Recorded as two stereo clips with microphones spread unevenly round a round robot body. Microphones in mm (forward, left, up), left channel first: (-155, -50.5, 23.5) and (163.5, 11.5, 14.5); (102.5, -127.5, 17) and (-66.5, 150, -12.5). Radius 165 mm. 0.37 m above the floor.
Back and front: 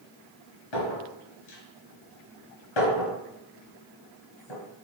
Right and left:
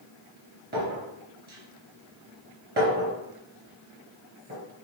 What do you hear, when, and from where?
0.7 s a clink: 175° right, 3 m